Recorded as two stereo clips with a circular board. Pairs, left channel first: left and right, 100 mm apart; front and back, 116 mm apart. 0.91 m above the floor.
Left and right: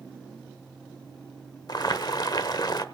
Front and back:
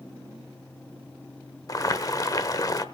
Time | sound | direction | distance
1.7 | boiling | 55° left | 1.0 m